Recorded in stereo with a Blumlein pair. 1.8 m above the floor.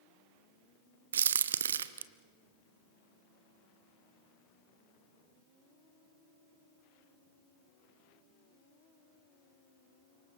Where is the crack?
65° right, 0.8 m.